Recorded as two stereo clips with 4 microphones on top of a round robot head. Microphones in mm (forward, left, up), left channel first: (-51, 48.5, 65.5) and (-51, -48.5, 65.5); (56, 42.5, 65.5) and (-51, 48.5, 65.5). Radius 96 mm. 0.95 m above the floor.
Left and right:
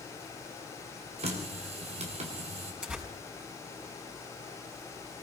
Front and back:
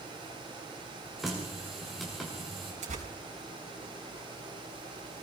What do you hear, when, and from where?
1.2 s a running tap: 95° right, 2.5 m
2.8 s tearing paper: 170° right, 5 m